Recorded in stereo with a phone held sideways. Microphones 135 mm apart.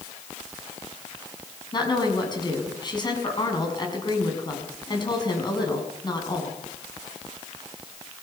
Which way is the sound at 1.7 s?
35° left (ahead or behind).